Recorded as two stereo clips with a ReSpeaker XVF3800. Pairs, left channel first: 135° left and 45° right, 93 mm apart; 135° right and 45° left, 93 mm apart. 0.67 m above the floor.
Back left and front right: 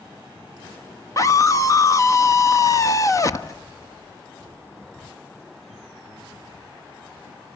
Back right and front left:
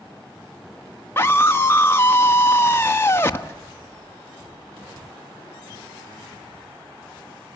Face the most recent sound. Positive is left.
turn(degrees=170)